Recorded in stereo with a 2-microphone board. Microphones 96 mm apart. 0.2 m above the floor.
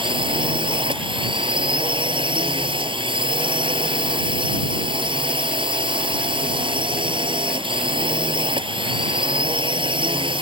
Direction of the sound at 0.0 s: 60° right (ahead or behind).